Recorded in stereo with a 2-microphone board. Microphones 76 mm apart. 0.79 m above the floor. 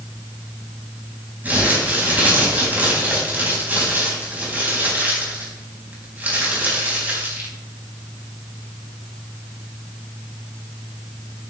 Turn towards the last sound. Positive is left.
turn(degrees=-25)  # may be behind; listen again after turning